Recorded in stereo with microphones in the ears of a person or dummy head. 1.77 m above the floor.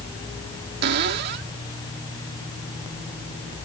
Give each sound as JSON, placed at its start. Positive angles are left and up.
{"t": 0.8, "sound": "a cupboard door", "side_deg": -70}